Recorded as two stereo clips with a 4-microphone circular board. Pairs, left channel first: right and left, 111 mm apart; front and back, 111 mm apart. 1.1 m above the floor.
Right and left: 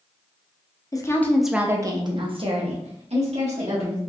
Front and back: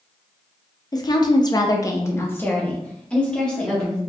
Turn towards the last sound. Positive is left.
turn(degrees=85)